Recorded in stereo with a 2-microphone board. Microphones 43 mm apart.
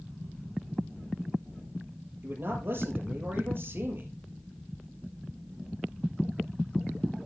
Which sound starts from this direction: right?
A man speaking, at 2.2 s.